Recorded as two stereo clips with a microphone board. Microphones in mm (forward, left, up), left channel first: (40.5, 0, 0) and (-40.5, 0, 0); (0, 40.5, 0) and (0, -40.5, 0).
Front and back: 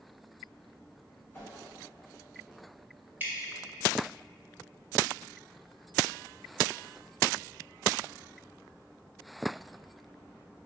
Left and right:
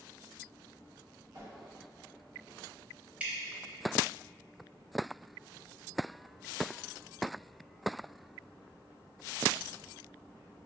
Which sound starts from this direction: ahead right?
A whoosh, at 1.3 s.